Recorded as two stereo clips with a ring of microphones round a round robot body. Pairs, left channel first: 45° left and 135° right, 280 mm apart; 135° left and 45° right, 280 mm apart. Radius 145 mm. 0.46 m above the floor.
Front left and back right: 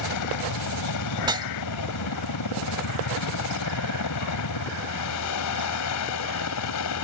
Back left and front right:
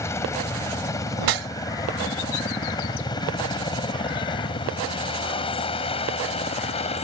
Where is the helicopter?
55° left; by 7.0 s 70° left.